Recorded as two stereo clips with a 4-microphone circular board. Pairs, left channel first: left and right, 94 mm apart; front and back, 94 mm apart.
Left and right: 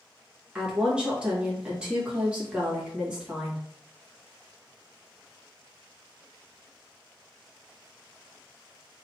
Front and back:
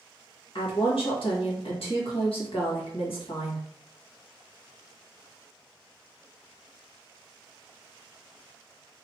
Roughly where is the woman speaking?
Ahead.